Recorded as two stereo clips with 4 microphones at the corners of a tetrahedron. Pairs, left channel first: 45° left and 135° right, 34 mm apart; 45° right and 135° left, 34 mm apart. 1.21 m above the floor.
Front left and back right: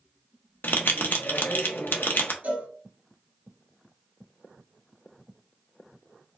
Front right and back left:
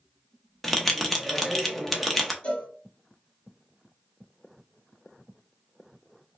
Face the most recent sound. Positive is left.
turn(degrees=-95)